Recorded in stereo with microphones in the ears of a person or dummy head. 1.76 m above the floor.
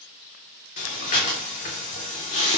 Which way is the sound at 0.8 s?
40° left (ahead or behind).